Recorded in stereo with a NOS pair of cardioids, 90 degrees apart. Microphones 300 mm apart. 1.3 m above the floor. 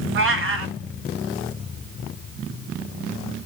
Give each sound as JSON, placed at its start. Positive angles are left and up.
{"t": 0.1, "sound": "a cat meowing", "azimuth_deg": -45, "distance_m": 1.6}